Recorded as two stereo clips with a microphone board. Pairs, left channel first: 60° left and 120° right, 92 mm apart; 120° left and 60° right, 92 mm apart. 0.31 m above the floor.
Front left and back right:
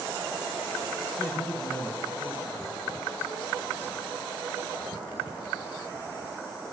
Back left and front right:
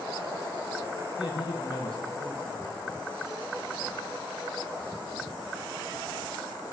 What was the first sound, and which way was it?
A man speaking, 125° left.